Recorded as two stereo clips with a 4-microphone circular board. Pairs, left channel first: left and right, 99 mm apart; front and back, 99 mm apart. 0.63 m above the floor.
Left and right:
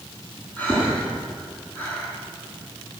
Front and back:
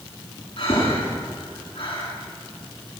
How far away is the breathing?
About 8.5 m.